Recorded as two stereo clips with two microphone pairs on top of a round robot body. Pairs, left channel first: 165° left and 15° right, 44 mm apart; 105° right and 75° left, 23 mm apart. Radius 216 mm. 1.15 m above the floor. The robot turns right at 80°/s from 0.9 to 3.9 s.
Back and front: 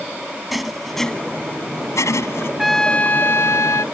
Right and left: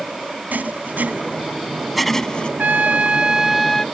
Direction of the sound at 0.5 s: 75° left.